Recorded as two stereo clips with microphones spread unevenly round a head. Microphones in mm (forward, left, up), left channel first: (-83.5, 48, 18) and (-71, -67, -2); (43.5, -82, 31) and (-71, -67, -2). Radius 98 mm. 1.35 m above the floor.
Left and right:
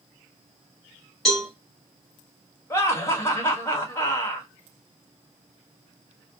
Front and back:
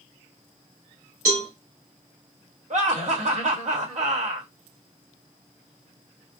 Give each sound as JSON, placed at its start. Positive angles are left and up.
{"t": 1.2, "sound": "a cowbell", "azimuth_deg": 180, "distance_m": 2.5}
{"t": 2.7, "sound": "laughter", "azimuth_deg": 165, "distance_m": 1.4}